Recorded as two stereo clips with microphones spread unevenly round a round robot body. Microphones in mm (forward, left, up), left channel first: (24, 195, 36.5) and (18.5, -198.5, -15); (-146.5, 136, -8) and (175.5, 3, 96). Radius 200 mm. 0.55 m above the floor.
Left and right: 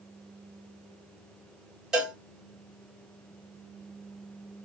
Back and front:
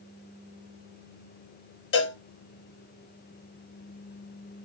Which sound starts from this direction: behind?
A cowbell, at 1.9 s.